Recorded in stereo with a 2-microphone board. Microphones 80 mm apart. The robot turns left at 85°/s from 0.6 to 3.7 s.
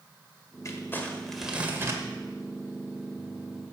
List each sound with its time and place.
0.7 s crumpling: 60° left, 1.5 m; by 2.0 s 60° right, 1.5 m